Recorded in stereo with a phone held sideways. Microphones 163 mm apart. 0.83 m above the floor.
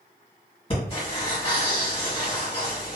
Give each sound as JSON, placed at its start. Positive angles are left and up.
{"t": 0.7, "sound": "breathing", "side_deg": 35, "distance_m": 1.3}